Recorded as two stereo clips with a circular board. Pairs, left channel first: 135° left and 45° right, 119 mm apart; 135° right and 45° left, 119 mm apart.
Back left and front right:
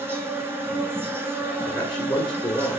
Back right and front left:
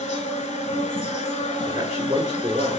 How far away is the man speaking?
About 1.3 m.